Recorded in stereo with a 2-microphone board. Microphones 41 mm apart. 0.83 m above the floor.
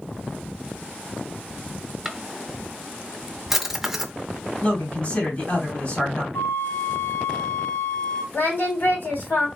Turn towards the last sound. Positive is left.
turn(degrees=55)  # may be behind; listen again after turning